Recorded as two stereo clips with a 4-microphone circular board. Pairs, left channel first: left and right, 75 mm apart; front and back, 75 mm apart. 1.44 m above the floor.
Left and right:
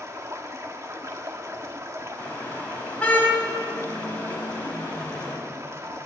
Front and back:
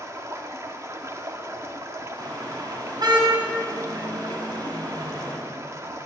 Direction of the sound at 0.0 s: 135° right.